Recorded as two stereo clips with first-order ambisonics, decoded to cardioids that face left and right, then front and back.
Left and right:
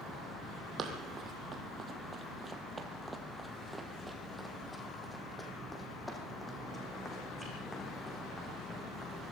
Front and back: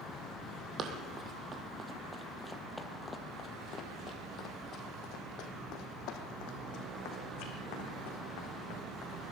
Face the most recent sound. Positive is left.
turn(degrees=15)